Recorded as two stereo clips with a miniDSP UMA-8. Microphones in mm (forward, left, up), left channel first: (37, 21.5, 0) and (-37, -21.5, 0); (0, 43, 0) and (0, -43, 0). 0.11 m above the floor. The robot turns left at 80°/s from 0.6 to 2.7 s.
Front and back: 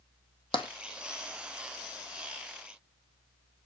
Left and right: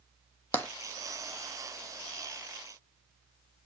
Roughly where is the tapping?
Ahead.